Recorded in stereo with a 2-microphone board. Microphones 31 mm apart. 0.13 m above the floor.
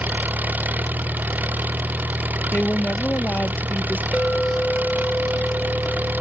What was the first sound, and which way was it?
An engine running, 75° right (ahead or behind).